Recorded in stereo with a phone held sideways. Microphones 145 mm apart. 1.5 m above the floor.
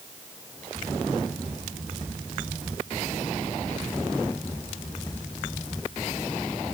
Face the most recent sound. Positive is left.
No sound to turn to.